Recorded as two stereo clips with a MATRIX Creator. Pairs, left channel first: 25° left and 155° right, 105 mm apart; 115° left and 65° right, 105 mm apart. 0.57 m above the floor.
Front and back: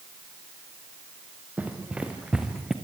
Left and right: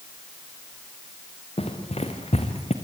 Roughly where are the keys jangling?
No keys jangling in this recording.